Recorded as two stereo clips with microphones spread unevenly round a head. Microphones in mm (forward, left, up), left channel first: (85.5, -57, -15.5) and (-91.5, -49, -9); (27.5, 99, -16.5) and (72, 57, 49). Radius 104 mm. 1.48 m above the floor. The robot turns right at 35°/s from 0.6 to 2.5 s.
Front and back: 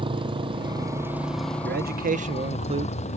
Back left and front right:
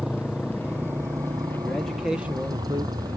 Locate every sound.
0.0 s a motorcycle: 120° right; by 3.2 s 55° right
1.6 s a man speaking: 155° right; by 3.0 s 125° right